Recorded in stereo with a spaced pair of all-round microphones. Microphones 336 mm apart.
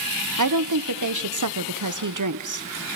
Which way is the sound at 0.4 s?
60° right (ahead or behind).